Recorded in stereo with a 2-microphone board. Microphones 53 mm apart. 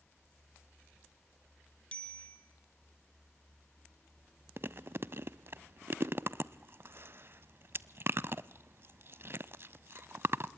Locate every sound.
1.9 s a bicycle bell: 20° left (ahead or behind), 3 m
4.6 s chewing: 45° right (ahead or behind), 0.5 m